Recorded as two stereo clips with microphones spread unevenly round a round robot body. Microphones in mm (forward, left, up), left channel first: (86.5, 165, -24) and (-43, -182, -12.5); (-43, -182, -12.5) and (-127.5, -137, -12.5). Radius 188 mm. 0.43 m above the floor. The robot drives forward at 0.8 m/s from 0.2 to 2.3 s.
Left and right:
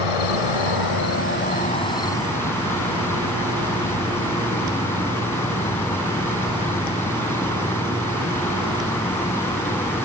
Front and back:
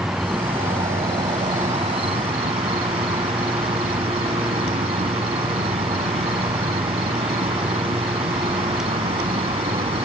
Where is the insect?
70° left; by 10.1 s 155° left.